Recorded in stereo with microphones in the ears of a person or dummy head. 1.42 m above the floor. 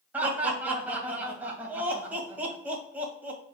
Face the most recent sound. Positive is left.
turn(degrees=-10)  # may be behind; listen again after turning